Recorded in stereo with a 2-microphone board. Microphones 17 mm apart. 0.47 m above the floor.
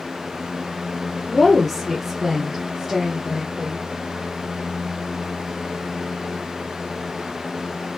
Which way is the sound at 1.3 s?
20° left (ahead or behind).